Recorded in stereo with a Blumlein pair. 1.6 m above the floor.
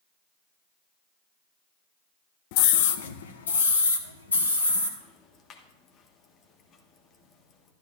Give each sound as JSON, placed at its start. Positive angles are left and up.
{"t": 2.5, "sound": "a scream", "azimuth_deg": 45, "distance_m": 0.8}
{"t": 5.0, "sound": "ticking", "azimuth_deg": 30, "distance_m": 1.4}